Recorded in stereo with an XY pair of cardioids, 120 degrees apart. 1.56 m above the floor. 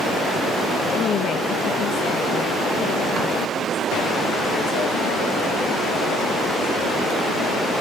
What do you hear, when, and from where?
0.9 s a woman speaking: 55° left, 1.4 m; by 7.2 s 80° left, 4.5 m